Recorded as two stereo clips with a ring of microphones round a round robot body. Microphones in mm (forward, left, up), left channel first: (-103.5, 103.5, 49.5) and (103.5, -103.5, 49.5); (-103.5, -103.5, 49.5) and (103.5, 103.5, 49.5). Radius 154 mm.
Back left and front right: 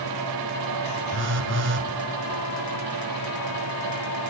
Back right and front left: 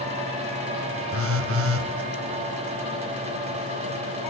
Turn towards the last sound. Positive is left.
turn(degrees=5)